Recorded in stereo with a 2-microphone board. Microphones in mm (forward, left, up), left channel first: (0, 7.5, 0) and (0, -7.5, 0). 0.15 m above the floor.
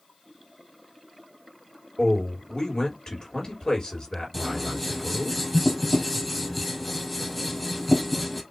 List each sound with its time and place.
2.0 s a man speaking: 55° left (ahead or behind), 3 m
4.3 s scissors: 5° left (ahead or behind), 1.7 m